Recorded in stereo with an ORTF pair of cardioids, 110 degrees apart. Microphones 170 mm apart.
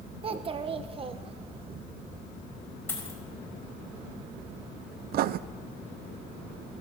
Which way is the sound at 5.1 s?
65° right.